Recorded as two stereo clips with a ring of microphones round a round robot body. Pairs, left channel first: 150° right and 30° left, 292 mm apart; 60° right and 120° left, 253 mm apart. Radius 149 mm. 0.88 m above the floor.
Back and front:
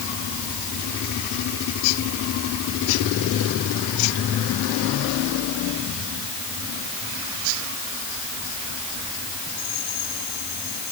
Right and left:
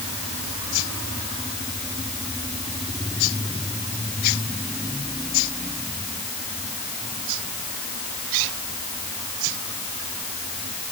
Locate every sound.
Only background noise.